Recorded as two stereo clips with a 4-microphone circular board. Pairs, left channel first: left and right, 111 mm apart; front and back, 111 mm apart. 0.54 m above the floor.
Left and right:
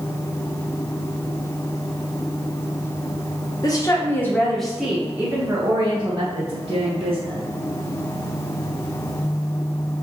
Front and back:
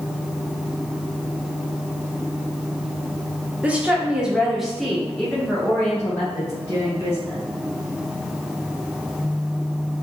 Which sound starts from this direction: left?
A woman speaking, at 3.6 s.